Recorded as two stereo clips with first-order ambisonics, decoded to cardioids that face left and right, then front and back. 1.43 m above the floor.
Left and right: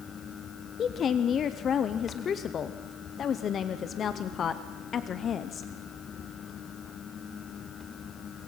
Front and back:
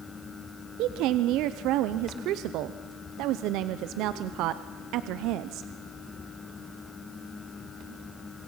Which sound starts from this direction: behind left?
A woman speaking, at 0.8 s.